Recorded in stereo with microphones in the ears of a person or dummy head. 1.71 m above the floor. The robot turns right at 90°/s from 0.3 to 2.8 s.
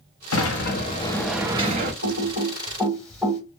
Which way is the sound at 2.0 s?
65° right (ahead or behind).